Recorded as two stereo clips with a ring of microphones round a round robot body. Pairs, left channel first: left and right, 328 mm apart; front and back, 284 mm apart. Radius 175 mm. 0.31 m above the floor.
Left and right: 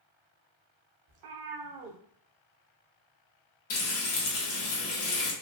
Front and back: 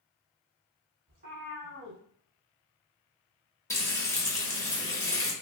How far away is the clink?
I don't hear a clink.